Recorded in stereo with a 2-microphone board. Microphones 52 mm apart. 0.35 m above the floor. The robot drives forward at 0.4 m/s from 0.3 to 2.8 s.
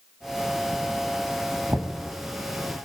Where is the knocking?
65° right (ahead or behind), 2 m.